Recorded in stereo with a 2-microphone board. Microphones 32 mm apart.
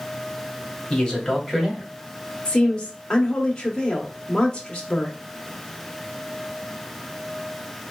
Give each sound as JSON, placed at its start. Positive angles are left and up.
{"t": 0.9, "sound": "a man speaking", "side_deg": 25, "distance_m": 1.2}
{"t": 2.5, "sound": "a woman speaking", "side_deg": 20, "distance_m": 0.8}